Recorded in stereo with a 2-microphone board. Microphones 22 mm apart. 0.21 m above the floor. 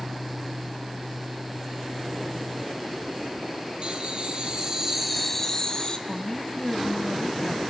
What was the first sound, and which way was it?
Laughter, 55° right (ahead or behind).